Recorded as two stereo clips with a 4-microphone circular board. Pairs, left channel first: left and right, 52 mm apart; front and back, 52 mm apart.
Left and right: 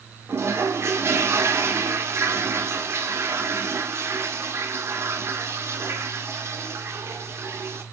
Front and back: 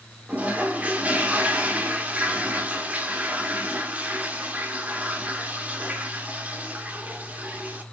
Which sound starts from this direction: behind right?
A toilet flushing, at 0.3 s.